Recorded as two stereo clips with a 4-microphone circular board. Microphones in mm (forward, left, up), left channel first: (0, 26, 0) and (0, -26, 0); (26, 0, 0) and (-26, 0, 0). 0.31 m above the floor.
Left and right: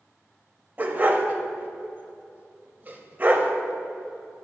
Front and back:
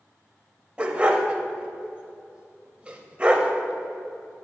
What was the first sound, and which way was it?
A dog barking, 120° right.